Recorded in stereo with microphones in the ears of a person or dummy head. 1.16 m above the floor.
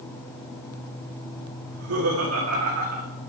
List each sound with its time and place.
1.6 s laughter: 90° right, 3 m; by 3.1 s 85° right, 1.7 m